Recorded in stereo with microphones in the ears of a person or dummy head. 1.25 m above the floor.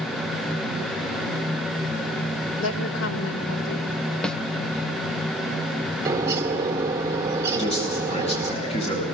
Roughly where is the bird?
Centre.